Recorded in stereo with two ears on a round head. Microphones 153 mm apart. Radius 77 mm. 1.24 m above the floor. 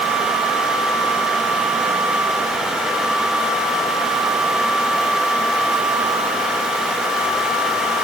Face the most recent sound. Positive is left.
No sound to turn to.